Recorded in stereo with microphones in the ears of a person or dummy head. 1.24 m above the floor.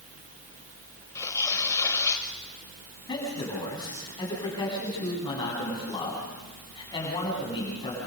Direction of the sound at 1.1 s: 10° left (ahead or behind).